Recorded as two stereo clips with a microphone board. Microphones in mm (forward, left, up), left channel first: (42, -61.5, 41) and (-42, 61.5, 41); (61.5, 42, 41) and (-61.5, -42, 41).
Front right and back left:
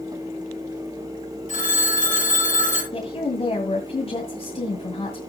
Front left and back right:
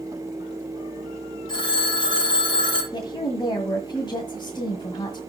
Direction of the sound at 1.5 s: 25° right.